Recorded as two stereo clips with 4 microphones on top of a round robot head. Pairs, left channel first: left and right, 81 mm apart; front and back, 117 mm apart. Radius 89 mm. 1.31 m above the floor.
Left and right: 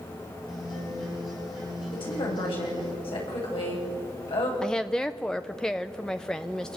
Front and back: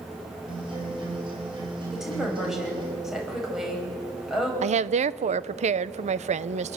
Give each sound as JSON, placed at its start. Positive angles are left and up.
{"t": 0.5, "sound": "a guitar", "azimuth_deg": 140, "distance_m": 9.5}
{"t": 1.9, "sound": "a woman speaking", "azimuth_deg": 95, "distance_m": 9.5}
{"t": 4.6, "sound": "a woman speaking", "azimuth_deg": 175, "distance_m": 0.8}